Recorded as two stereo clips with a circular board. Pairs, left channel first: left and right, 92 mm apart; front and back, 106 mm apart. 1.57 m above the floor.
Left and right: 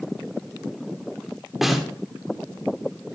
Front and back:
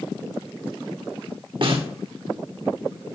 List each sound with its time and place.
1.6 s a snare drum: 175° right, 1.8 m